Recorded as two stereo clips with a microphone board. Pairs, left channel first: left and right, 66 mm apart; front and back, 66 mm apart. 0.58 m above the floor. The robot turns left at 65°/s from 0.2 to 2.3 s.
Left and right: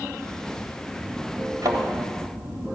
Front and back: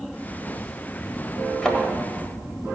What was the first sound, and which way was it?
A thud, 75° right.